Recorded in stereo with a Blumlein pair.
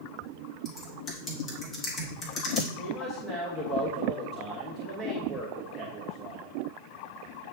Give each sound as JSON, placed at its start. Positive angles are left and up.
{"t": 0.7, "sound": "typing on a keyboard", "azimuth_deg": 25, "distance_m": 1.9}
{"t": 2.8, "sound": "a man speaking", "azimuth_deg": 10, "distance_m": 1.4}